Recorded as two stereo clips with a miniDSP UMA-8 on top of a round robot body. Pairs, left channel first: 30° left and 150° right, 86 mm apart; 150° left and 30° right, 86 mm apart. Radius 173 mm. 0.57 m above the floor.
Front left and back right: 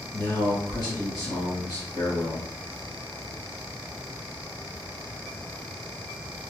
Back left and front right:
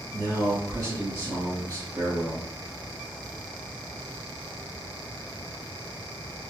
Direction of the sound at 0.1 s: 5° left.